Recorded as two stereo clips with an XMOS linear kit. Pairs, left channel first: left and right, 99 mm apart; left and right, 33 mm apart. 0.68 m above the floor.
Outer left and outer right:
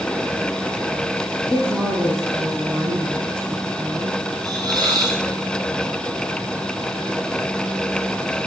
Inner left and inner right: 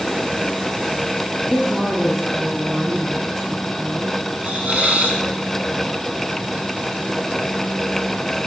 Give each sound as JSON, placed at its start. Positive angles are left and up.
{"t": 1.4, "sound": "a woman speaking", "side_deg": -5, "distance_m": 5.5}
{"t": 4.4, "sound": "a hiss", "side_deg": -45, "distance_m": 3.5}